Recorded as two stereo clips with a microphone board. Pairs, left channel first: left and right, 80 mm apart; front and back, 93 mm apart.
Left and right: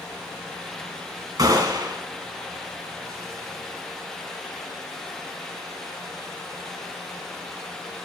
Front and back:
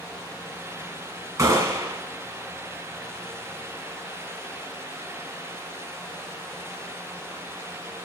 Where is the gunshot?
130° right, 2.0 m.